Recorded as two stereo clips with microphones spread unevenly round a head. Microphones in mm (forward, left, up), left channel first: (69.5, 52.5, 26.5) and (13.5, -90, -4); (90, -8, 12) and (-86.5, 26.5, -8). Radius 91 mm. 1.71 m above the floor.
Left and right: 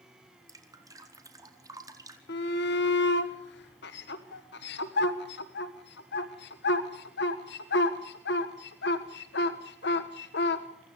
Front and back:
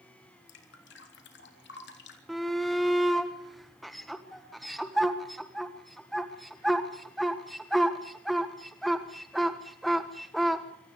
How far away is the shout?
About 1.4 m.